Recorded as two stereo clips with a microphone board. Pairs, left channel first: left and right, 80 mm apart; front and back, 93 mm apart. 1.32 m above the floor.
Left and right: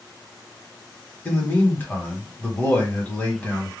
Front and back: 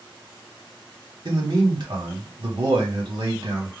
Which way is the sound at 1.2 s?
155° left.